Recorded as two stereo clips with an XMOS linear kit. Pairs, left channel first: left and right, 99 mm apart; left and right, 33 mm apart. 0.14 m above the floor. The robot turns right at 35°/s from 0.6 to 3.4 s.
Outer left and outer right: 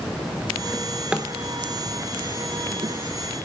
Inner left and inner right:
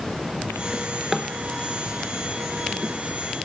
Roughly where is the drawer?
Centre.